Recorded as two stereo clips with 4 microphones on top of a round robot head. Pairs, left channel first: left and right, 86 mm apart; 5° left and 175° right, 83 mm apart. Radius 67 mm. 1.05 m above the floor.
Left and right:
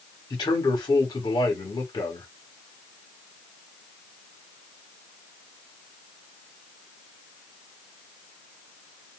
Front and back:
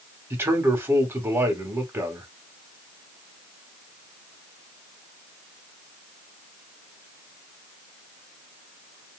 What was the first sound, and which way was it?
A man speaking, 125° left.